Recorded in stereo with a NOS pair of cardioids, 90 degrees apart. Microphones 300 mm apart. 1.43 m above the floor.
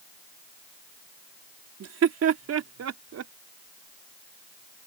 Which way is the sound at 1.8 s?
55° right.